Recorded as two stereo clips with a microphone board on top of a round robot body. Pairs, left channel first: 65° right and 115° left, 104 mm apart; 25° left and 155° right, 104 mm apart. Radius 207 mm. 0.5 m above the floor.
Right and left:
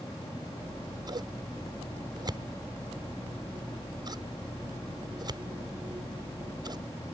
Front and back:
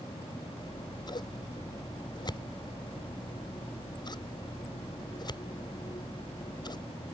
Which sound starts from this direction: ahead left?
Scissors, at 0.6 s.